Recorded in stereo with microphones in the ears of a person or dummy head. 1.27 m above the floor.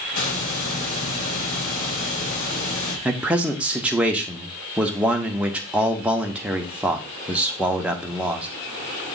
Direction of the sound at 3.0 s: 5° right (ahead or behind).